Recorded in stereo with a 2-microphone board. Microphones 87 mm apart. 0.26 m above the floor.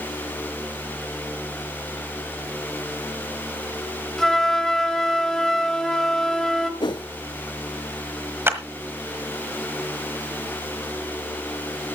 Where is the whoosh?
65° left (ahead or behind), 0.6 m.